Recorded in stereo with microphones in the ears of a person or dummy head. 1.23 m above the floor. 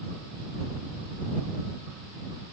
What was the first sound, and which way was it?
Only background noise.